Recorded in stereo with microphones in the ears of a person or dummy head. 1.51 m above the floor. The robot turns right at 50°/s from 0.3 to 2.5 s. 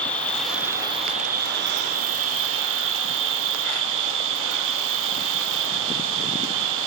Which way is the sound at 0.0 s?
175° left.